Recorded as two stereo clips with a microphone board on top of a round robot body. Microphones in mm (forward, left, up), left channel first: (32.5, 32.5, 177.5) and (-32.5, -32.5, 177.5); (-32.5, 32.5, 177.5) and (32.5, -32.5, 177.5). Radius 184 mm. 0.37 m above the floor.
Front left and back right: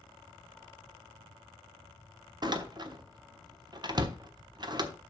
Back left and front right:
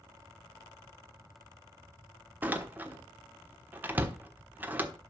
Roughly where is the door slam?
Right.